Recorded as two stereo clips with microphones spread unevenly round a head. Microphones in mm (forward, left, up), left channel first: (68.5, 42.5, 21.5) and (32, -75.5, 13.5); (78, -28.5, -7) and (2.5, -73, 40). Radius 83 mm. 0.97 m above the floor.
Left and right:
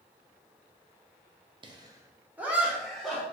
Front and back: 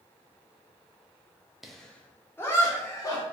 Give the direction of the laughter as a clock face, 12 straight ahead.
2 o'clock.